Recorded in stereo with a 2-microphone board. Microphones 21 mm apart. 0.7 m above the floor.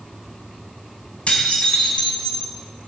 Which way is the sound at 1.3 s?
75° left (ahead or behind).